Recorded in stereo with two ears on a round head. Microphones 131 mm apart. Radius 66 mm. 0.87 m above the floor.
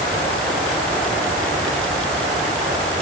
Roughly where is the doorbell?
No doorbell in this recording.